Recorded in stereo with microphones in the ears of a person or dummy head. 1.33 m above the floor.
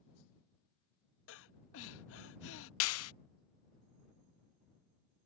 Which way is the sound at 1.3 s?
75° left (ahead or behind).